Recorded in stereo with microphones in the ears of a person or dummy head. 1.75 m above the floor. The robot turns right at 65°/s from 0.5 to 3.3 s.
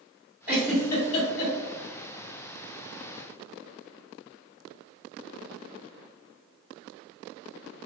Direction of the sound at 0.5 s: 5° right (ahead or behind).